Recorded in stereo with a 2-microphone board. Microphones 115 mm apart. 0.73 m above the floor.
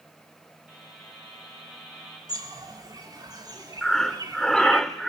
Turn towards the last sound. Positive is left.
turn(degrees=5)  # may be behind; listen again after turning